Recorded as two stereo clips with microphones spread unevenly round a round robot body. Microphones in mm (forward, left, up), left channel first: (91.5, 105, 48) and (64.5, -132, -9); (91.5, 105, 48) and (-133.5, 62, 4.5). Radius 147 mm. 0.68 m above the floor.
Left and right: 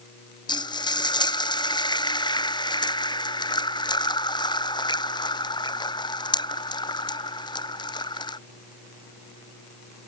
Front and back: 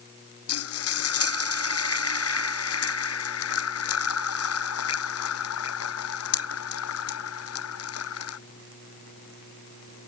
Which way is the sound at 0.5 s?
15° left.